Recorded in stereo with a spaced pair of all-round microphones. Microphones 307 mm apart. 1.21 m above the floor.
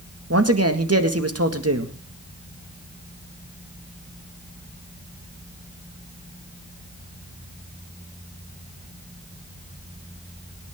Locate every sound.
0.3 s a man speaking: 50° right (ahead or behind), 1.9 m